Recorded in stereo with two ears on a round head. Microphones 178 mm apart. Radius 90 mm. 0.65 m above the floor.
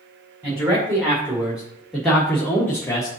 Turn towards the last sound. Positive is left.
turn(degrees=25)  # may be behind; listen again after turning